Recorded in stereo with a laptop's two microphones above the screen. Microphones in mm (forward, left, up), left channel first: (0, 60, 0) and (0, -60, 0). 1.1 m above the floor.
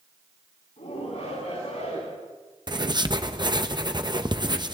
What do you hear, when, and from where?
0.8 s a shout: 75° left (ahead or behind), 9 m
2.7 s writing: 35° right (ahead or behind), 0.8 m